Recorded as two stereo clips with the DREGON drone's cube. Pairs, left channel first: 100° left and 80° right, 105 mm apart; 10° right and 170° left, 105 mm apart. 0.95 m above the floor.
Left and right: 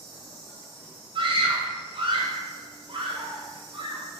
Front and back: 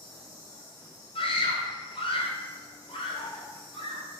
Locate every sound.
0.0 s an insect: 40° right, 0.9 m
1.1 s a scream: 45° right, 0.7 m